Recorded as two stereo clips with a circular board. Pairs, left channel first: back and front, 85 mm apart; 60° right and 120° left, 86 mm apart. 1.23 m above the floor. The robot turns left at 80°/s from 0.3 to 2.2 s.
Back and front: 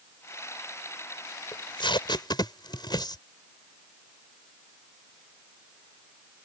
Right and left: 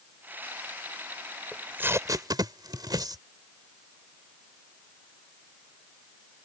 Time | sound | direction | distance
1.5 | tape being pulled | 150° right | ?